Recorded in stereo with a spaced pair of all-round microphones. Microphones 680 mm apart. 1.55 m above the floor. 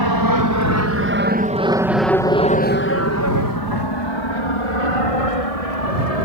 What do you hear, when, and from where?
0.0 s an aircraft: 35° right (ahead or behind); by 6.2 s 60° left (ahead or behind)